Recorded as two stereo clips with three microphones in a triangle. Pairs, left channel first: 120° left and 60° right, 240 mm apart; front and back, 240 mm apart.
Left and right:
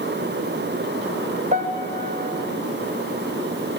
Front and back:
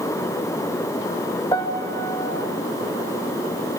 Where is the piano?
65° right, 1.5 m.